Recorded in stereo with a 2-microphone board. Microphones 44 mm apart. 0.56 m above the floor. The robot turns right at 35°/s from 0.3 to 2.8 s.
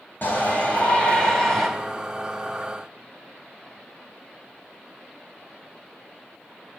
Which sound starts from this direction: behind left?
A shout, at 0.2 s.